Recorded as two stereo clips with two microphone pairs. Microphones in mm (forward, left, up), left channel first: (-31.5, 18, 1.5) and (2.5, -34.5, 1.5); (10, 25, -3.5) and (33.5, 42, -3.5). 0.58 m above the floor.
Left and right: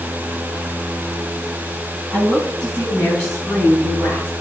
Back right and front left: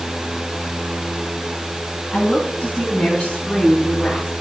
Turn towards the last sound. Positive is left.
turn(degrees=-165)